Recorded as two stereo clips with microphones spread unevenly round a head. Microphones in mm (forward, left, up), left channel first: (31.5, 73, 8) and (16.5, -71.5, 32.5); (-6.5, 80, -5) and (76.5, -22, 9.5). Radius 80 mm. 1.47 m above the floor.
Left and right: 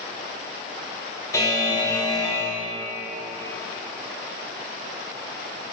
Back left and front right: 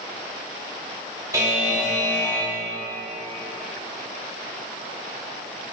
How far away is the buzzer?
About 3.5 m.